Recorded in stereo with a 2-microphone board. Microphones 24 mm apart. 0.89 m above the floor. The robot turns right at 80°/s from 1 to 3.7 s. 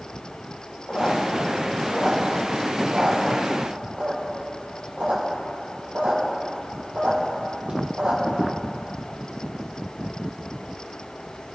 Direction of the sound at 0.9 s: 80° left.